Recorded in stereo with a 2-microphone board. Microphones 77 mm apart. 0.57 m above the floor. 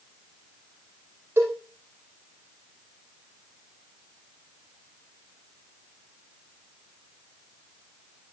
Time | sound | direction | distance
1.4 | a cowbell | 30° right (ahead or behind) | 8 m